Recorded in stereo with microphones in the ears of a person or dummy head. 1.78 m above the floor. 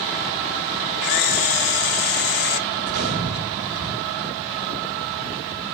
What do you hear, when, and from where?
1.0 s a camera shutter: 50° left (ahead or behind), 0.6 m
2.8 s a gunshot: 70° right (ahead or behind), 4 m